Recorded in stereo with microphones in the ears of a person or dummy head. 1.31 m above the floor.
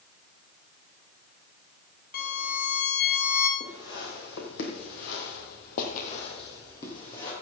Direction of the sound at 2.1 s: 50° left (ahead or behind).